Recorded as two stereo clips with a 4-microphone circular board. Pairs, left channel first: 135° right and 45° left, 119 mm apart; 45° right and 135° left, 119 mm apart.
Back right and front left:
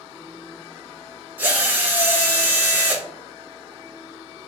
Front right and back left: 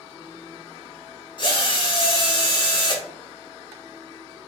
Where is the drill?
25° right, 0.8 m.